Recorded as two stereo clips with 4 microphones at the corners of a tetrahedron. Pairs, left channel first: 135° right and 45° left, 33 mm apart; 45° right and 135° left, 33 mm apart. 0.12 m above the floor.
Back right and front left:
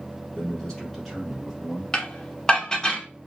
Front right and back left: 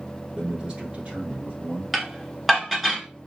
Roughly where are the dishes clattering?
Behind right.